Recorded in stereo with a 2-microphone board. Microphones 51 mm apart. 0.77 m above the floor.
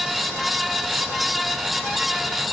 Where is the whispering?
I don't hear whispering.